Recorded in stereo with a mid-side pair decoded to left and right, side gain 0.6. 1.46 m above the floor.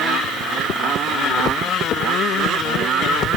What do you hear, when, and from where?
Only background noise.